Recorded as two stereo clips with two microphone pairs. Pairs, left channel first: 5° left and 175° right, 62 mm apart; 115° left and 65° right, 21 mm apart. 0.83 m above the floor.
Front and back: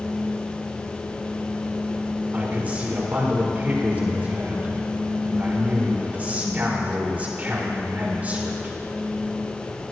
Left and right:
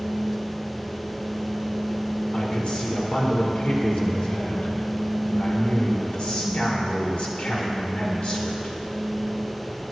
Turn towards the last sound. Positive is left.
turn(degrees=120)